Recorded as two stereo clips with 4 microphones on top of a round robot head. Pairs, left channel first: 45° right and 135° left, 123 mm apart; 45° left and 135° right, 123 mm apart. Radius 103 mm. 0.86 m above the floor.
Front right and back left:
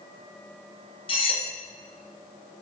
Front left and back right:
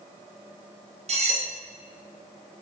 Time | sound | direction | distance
1.1 | cutlery clinking | 95° right | 1.8 m